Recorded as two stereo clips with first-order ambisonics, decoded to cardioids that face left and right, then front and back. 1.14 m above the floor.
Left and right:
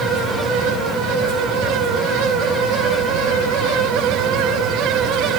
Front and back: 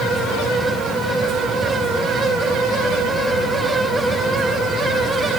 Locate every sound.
Only background noise.